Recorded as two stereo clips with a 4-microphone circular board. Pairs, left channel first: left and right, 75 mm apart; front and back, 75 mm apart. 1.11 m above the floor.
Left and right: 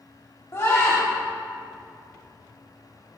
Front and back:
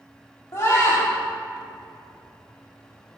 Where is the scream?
45° left, 3.5 m.